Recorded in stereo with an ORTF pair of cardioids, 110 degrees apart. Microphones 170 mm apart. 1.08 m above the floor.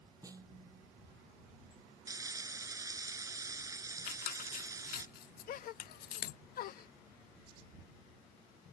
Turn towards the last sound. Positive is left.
turn(degrees=60)